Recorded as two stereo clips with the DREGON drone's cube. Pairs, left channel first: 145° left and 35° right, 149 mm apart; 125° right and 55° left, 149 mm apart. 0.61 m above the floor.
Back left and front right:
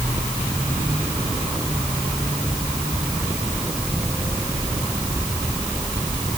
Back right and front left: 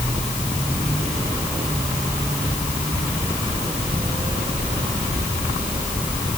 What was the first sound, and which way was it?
Only background noise.